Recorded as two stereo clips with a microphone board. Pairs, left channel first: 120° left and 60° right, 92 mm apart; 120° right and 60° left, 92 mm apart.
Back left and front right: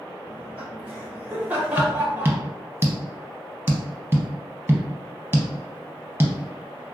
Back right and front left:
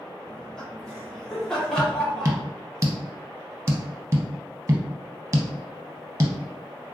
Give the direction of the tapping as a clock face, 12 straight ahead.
12 o'clock.